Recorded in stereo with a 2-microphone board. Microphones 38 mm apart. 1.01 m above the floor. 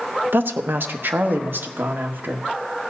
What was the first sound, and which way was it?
A woman speaking, 75° right (ahead or behind).